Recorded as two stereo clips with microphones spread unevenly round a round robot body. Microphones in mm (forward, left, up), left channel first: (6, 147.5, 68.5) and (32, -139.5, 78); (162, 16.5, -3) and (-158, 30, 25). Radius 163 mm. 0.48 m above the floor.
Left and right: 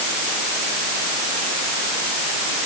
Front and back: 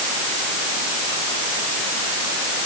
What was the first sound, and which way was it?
Only background noise.